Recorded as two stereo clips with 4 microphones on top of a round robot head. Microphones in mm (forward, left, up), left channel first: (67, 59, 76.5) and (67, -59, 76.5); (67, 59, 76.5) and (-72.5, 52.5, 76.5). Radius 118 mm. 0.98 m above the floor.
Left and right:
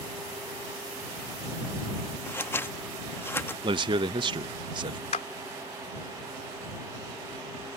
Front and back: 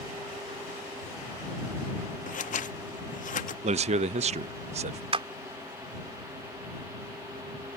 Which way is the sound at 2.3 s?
20° left.